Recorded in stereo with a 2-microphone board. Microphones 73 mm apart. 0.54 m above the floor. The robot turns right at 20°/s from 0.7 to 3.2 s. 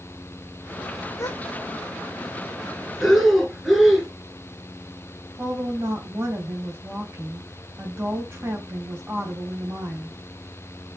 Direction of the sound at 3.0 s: Centre (ahead or behind).